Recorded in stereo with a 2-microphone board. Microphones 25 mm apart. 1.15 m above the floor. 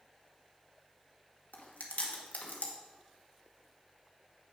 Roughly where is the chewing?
Left.